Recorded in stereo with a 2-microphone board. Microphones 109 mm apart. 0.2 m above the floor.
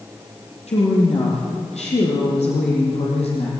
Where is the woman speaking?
80° left, 5.5 m; by 3.5 s 70° left (ahead or behind), 6.5 m.